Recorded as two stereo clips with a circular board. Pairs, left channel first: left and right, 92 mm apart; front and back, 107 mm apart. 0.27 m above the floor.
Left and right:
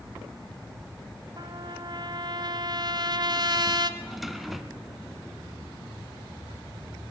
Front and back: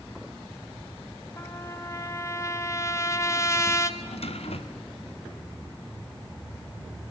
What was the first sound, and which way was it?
A trumpet, 60° right.